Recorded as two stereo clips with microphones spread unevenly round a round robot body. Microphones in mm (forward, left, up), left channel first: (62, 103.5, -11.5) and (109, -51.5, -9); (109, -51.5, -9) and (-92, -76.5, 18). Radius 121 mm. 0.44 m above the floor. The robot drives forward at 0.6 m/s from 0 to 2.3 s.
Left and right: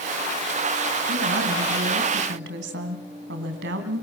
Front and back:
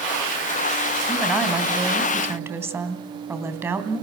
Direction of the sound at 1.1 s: 80° right.